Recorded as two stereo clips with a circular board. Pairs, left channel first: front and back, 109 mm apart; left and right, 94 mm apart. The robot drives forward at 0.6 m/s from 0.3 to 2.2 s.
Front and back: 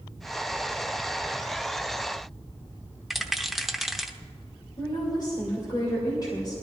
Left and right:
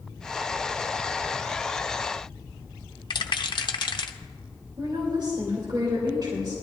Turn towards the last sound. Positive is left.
turn(degrees=-50)